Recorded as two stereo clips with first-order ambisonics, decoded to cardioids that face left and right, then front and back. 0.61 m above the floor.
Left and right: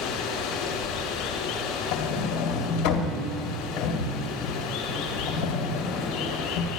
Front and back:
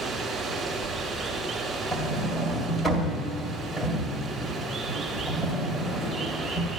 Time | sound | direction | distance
0.0 | running water | 100° left | 1.9 m
1.9 | a sliding door | 80° left | 2 m